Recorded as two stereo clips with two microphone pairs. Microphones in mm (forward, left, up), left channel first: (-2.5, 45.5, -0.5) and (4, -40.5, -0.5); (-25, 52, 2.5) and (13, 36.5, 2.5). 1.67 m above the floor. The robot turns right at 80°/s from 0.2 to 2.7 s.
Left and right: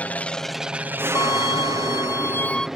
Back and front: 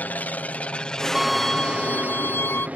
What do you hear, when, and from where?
0.0 s an aircraft: 160° left; by 2.8 s straight ahead
1.1 s a violin: 55° left; by 2.7 s straight behind